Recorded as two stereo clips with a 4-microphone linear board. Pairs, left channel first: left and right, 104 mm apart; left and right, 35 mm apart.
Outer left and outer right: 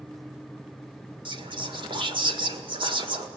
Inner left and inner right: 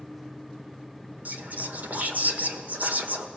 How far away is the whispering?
About 1.9 m.